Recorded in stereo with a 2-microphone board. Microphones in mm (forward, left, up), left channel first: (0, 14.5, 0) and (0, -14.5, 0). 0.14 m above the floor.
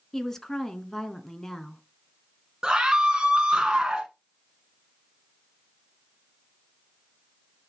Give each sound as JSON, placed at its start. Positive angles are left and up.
{"t": 0.1, "sound": "a woman speaking", "side_deg": 15, "distance_m": 1.2}
{"t": 2.6, "sound": "a scream", "side_deg": -20, "distance_m": 1.1}